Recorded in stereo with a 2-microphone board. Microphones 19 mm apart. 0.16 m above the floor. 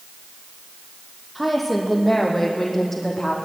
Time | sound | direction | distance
1.4 | a woman speaking | 5° right (ahead or behind) | 5.5 m